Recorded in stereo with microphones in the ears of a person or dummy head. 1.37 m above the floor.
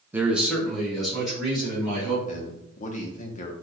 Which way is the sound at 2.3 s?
45° left (ahead or behind).